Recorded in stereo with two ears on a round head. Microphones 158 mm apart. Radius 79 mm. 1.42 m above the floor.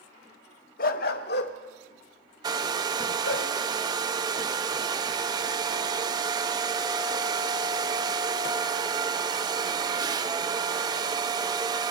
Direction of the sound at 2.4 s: 25° right (ahead or behind).